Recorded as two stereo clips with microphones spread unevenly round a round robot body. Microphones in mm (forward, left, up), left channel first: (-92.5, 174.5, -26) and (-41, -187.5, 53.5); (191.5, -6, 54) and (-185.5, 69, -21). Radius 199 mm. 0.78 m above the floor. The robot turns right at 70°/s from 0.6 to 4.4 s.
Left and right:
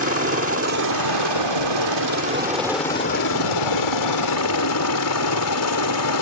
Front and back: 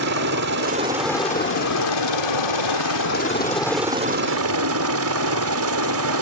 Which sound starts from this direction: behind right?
A helicopter, at 0.0 s.